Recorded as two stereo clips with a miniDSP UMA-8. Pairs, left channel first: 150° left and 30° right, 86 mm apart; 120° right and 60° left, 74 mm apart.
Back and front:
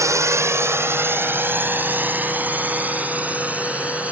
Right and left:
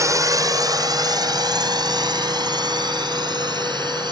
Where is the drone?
20° left; by 4.1 s 45° left.